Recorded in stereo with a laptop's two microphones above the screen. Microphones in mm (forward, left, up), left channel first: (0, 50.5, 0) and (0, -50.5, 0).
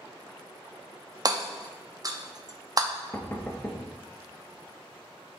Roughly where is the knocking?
Left.